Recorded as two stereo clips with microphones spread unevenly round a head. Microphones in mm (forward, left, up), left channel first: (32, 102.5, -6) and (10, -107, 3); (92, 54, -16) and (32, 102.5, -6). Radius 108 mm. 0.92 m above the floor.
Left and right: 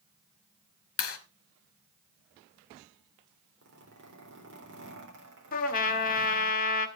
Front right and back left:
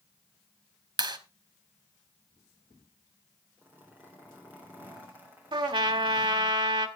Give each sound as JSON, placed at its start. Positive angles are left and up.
{"t": 1.0, "sound": "a clap", "azimuth_deg": 115, "distance_m": 1.8}
{"t": 3.6, "sound": "a zipper", "azimuth_deg": -135, "distance_m": 4.0}
{"t": 5.5, "sound": "a trumpet", "azimuth_deg": 140, "distance_m": 1.6}